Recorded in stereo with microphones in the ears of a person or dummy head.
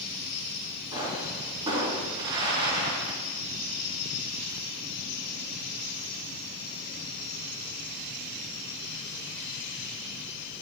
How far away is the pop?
About 2.5 m.